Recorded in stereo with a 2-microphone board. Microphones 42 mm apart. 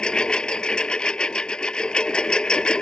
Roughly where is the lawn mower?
Centre.